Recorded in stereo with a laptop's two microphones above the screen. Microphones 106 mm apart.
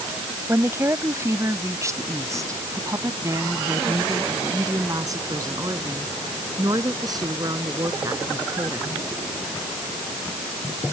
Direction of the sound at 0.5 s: 25° right (ahead or behind).